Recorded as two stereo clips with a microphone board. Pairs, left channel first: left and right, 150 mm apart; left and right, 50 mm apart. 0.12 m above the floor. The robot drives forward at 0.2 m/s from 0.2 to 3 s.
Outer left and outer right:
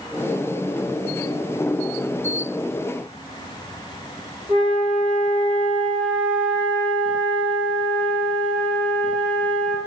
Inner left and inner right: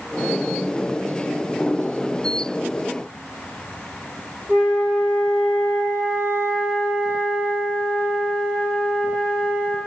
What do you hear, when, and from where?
4.5 s a flute: centre (ahead or behind), 1.6 m